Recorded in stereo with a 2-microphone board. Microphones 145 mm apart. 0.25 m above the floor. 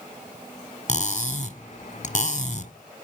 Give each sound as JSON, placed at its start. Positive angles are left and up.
{"t": 0.9, "sound": "cutlery clinking", "side_deg": 55, "distance_m": 1.4}